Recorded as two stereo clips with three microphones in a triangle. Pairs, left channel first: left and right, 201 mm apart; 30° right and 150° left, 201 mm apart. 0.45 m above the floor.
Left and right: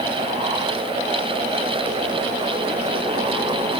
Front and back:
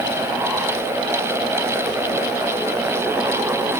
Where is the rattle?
I don't hear a rattle.